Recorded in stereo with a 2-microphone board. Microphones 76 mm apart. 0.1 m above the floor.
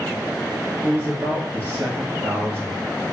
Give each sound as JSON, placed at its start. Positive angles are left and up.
{"t": 0.8, "sound": "a man speaking", "side_deg": -25, "distance_m": 1.1}